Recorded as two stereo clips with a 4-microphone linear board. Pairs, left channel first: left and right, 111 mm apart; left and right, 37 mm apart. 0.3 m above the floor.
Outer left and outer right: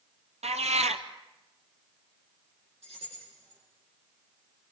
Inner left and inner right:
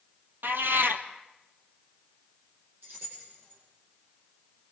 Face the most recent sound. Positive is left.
turn(degrees=-70)  # may be behind; listen again after turning